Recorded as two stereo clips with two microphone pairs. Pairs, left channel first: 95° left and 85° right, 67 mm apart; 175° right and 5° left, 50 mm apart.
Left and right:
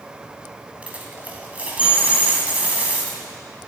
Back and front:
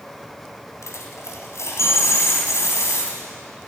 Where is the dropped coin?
150° right, 2 m.